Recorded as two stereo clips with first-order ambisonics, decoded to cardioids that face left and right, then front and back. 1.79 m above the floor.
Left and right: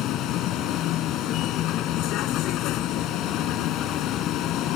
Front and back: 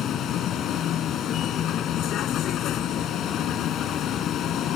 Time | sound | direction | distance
0.0 | a vehicle | 50° left | ?